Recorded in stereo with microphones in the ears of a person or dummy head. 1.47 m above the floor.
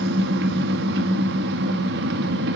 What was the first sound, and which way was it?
An engine running, 60° right (ahead or behind).